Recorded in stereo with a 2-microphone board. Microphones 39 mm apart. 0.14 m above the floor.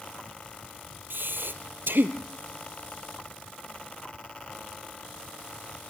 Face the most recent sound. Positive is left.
turn(degrees=-70)  # may be behind; listen again after turning